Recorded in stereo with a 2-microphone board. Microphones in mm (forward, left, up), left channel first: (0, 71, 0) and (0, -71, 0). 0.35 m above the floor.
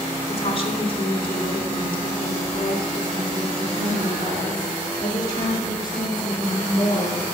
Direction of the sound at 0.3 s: 45° left (ahead or behind).